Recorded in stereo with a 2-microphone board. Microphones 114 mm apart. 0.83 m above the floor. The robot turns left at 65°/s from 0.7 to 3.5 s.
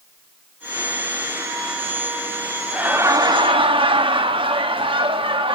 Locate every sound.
2.7 s laughter: 10° right, 1.2 m; by 5.5 s 60° right, 1.2 m